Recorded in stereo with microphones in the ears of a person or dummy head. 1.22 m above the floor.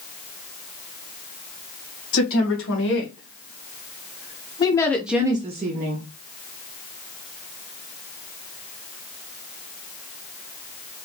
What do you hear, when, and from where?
2.1 s a woman speaking: 65° left (ahead or behind), 1.8 m; by 6.1 s 50° right (ahead or behind), 0.8 m